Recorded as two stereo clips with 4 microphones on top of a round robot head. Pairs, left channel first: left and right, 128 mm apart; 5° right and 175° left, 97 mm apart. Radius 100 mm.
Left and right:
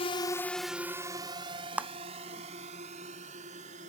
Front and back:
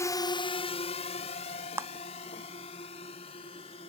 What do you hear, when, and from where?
0.0 s a drone: 50° left; by 3.9 s 45° right
1.8 s a clap: 160° right